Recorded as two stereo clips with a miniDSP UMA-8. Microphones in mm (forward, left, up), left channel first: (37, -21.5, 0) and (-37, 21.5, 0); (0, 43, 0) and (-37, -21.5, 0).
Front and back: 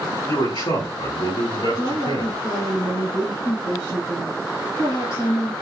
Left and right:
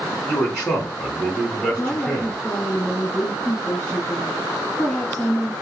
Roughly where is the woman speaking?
Ahead.